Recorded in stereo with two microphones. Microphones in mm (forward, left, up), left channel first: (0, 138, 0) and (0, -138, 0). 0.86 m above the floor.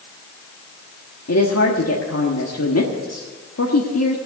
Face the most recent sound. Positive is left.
turn(degrees=65)  # may be behind; listen again after turning